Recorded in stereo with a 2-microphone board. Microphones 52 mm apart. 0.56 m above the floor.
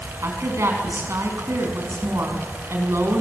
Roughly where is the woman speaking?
Right.